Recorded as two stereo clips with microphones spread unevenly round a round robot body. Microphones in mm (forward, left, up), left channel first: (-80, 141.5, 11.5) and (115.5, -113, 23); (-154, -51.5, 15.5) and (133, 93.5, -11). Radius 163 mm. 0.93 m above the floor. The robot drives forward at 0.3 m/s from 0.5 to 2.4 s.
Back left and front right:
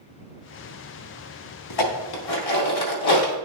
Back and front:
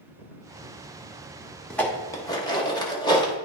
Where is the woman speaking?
No woman speaking in this recording.